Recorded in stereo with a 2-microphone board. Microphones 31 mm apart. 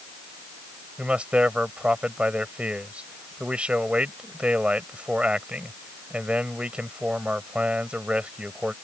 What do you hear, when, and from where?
1.0 s a man speaking: 40° right (ahead or behind)